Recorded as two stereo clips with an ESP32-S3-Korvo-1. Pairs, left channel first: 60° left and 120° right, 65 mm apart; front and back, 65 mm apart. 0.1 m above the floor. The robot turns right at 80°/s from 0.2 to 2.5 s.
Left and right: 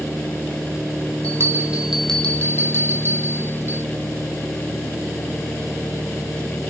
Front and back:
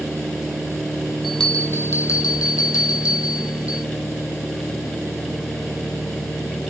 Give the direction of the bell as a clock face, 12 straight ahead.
3 o'clock.